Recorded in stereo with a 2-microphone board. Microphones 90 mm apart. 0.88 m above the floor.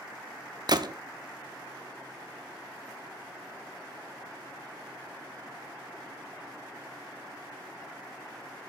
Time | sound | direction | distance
0.7 | a gunshot | 55° right (ahead or behind) | 0.6 m